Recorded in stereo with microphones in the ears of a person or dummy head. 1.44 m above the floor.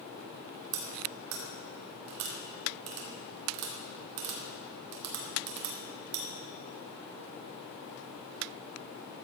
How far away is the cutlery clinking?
About 2.5 m.